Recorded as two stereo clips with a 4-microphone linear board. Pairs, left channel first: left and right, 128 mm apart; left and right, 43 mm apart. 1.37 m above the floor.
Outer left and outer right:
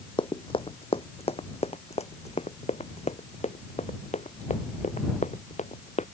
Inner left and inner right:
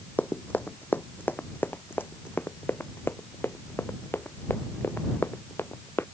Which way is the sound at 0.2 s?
40° left (ahead or behind).